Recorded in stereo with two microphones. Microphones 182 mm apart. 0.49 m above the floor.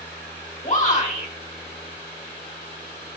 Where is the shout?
45° left (ahead or behind), 1.9 m.